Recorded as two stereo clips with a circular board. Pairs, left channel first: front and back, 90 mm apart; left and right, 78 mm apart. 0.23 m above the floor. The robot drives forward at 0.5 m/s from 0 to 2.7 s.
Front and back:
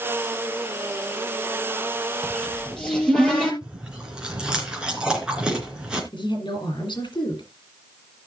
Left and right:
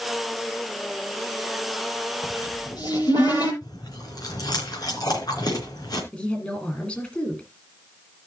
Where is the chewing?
100° left, 3.5 m.